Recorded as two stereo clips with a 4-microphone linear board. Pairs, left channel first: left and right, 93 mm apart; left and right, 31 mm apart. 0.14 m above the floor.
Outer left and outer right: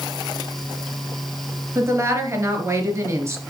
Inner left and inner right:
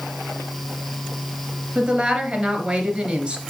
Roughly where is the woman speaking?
Right.